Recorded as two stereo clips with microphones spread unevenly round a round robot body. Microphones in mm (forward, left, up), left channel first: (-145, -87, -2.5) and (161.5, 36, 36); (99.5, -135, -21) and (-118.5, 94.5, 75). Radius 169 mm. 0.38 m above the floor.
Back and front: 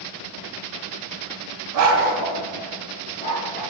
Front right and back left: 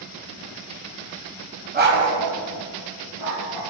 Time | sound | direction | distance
1.7 | a dog barking | 65° left | 1.3 m